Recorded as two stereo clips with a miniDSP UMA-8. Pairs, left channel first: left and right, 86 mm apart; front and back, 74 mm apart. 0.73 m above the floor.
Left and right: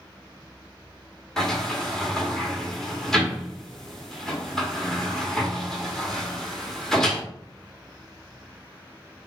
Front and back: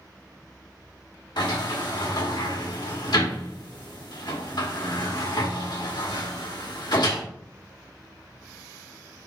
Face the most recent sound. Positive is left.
turn(degrees=5)